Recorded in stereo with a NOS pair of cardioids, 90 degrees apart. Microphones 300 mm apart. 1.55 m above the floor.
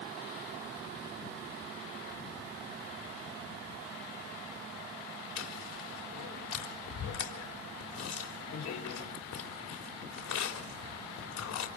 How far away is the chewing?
About 4 m.